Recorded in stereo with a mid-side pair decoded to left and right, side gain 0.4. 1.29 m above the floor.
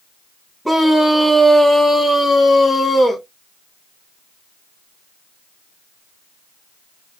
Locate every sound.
0.7 s a scream: 5° left, 2.5 m; by 3.2 s 35° left, 2.5 m